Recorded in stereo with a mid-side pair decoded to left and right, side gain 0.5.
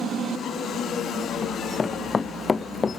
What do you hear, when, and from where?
1.4 s running footsteps: 25° left; by 3.0 s 30° left